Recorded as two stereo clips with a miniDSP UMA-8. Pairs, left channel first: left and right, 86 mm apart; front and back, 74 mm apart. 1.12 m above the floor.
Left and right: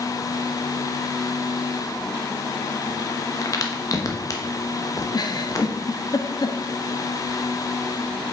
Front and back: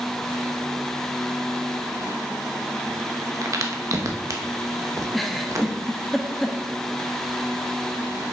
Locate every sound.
3.4 s a crack: 135° left, 0.9 m
5.1 s a giggle: 90° left, 0.7 m